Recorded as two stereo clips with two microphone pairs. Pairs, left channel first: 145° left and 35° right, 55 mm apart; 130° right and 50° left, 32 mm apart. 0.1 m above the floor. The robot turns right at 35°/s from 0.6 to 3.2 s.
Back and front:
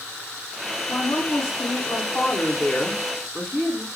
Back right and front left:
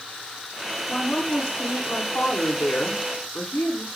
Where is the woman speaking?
160° left, 8.5 m; by 3.9 s 120° right, 8.5 m.